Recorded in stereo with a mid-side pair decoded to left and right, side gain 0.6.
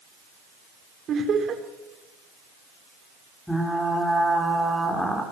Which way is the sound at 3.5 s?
5° left.